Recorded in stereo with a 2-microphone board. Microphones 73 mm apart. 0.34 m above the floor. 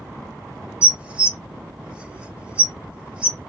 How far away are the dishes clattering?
About 0.6 m.